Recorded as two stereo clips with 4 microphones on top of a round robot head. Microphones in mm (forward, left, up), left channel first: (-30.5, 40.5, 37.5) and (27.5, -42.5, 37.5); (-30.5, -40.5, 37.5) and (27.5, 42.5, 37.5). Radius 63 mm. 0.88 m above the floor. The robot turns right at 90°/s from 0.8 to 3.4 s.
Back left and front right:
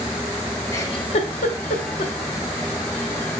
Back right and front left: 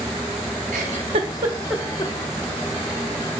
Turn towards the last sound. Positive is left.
turn(degrees=-65)